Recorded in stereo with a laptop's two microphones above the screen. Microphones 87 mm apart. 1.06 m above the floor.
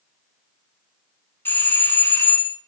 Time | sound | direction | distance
1.4 | a doorbell | 25° left (ahead or behind) | 0.5 m